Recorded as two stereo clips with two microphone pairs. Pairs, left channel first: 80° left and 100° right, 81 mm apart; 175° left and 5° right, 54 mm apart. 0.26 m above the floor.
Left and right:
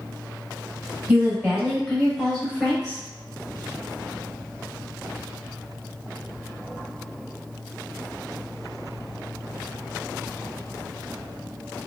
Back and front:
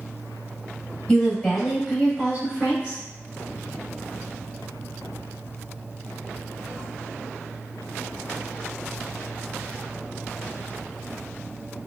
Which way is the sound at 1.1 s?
135° right.